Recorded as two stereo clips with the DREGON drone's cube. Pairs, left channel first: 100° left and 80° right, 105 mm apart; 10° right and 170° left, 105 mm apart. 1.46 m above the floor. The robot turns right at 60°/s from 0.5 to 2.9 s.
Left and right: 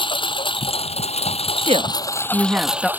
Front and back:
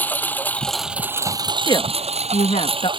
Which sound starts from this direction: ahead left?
A lawn mower, at 0.0 s.